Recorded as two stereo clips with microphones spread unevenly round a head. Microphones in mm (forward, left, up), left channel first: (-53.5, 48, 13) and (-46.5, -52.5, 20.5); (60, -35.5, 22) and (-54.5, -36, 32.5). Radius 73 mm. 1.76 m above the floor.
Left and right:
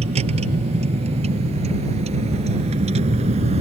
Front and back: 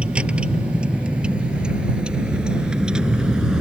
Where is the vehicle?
100° right; by 3.6 s 95° right.